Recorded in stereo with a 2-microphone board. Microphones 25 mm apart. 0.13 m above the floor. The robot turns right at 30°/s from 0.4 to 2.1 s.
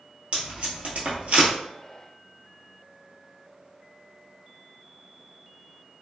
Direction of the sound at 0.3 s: 50° right (ahead or behind).